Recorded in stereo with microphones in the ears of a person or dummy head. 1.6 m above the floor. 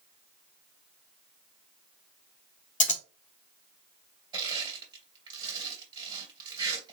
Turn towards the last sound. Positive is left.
turn(degrees=-25)  # may be behind; listen again after turning